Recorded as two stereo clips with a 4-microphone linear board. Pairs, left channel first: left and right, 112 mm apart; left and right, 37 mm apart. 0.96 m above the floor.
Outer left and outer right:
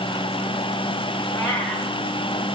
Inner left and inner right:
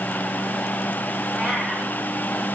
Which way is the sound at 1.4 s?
20° left (ahead or behind).